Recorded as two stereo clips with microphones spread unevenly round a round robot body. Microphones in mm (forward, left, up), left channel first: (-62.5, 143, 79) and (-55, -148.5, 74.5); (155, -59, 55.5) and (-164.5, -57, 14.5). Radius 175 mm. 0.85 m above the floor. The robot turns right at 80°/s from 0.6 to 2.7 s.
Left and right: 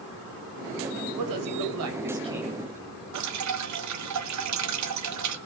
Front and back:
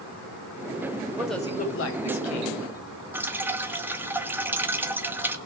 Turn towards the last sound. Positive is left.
turn(degrees=-100)